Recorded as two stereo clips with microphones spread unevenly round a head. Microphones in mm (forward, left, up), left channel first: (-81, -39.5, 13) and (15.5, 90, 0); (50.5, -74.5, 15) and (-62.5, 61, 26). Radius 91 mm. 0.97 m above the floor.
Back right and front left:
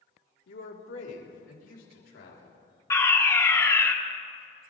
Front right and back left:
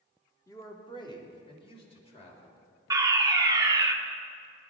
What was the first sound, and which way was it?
A man speaking, 120° right.